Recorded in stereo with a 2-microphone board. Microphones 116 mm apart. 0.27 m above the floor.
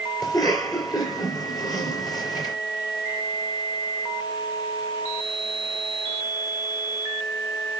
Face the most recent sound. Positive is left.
turn(degrees=35)  # may be behind; listen again after turning